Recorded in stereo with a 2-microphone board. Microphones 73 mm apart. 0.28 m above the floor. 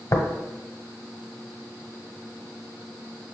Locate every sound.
0.1 s tapping: 45° left (ahead or behind), 1.1 m